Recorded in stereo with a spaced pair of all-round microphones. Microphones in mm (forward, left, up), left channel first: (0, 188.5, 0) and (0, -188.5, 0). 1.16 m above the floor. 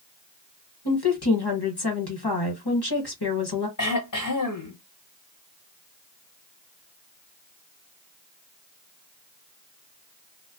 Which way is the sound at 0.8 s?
80° left.